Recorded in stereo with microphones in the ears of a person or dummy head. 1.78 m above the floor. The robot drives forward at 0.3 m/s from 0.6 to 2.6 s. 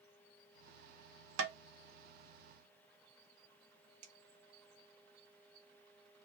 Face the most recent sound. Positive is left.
turn(degrees=-40)  # may be behind; listen again after turning